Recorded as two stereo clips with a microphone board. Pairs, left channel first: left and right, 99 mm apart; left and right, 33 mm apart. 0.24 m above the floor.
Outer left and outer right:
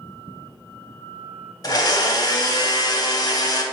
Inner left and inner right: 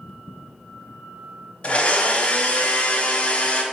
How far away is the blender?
About 0.7 m.